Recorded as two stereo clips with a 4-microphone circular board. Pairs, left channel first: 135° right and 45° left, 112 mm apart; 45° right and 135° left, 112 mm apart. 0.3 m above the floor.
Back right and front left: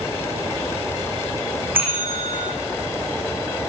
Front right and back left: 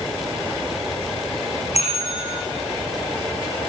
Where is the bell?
30° right, 8 m.